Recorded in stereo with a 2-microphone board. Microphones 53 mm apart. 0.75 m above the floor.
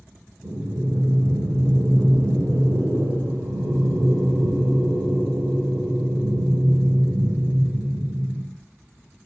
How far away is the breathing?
About 0.8 m.